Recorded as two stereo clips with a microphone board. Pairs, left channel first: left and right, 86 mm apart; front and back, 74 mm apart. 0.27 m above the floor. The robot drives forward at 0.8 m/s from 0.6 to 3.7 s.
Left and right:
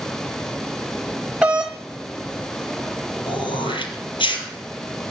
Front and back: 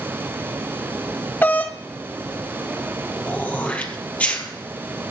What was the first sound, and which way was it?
A doorbell, 20° right.